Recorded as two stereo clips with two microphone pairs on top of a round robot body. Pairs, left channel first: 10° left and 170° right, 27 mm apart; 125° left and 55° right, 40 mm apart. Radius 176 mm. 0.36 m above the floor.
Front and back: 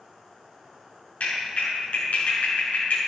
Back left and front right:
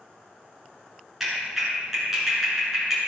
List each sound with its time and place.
1.2 s a clap: 25° left, 5.5 m